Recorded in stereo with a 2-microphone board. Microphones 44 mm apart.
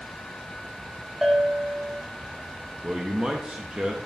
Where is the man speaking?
25° right (ahead or behind), 0.8 m.